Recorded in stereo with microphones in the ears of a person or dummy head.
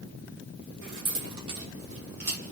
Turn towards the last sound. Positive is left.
turn(degrees=-40)  # may be behind; listen again after turning